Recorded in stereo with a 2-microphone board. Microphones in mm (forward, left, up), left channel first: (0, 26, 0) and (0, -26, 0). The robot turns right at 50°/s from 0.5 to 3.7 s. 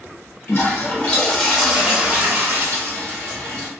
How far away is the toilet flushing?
About 1.2 m.